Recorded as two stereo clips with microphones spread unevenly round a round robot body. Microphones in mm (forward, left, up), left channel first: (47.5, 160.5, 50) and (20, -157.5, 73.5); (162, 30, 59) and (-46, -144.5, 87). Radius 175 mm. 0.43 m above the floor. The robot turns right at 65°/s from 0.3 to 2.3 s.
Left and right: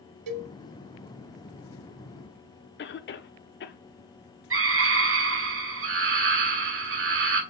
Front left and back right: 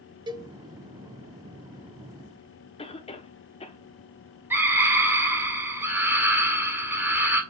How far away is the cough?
About 1.0 m.